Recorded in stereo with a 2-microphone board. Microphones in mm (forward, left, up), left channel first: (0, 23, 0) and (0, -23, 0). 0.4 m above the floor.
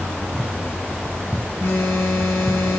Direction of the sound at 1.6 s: 70° left (ahead or behind).